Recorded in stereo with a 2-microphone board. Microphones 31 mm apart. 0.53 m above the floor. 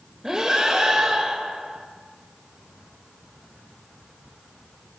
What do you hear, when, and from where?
0.2 s breathing: 15° right (ahead or behind), 1.3 m